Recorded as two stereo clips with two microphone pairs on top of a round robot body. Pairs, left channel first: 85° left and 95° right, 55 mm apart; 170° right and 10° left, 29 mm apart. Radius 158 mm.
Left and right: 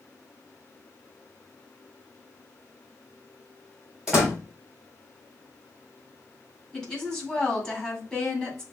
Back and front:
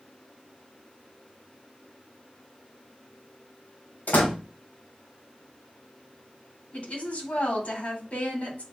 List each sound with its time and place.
4.1 s a door slam: straight behind, 3 m
6.7 s a woman speaking: 165° left, 3 m